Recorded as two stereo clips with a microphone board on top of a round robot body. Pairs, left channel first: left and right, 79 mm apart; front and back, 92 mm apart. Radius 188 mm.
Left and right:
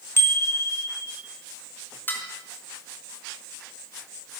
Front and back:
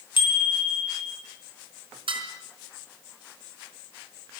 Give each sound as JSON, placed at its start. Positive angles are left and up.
{"t": 0.2, "sound": "a bicycle bell", "azimuth_deg": 30, "distance_m": 3.5}
{"t": 2.1, "sound": "dishes clattering", "azimuth_deg": 155, "distance_m": 4.0}